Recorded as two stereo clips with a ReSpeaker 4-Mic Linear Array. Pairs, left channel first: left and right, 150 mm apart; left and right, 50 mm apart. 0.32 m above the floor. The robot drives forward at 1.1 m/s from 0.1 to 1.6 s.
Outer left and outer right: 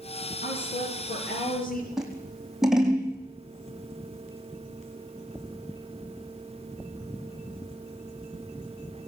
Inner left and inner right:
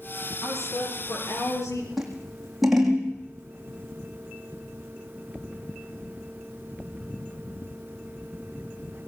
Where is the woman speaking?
80° left, 7 m; by 1.9 s 70° left (ahead or behind), 7.5 m.